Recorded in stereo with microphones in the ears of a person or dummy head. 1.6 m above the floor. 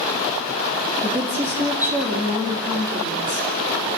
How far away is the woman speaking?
About 3 m.